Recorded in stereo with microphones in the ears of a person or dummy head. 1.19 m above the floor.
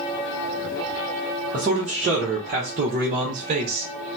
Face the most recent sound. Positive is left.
turn(degrees=-35)  # may be behind; listen again after turning